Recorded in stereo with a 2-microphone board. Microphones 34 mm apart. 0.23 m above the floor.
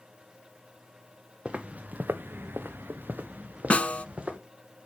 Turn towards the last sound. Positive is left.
turn(degrees=40)  # may be behind; listen again after turning